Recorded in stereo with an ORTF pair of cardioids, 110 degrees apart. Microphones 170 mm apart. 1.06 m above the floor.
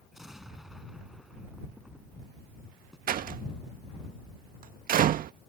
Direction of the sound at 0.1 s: Straight ahead.